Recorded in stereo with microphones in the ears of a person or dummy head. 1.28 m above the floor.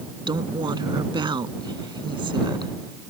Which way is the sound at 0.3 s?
25° right (ahead or behind).